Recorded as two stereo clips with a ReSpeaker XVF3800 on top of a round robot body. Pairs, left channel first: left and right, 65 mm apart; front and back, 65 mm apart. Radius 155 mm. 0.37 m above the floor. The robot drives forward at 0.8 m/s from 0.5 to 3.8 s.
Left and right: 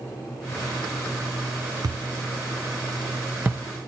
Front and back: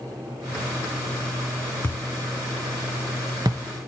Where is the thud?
55° right, 0.7 m; by 3.6 s 150° right, 1.2 m.